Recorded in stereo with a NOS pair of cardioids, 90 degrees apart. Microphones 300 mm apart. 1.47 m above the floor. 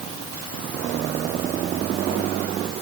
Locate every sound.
Only background noise.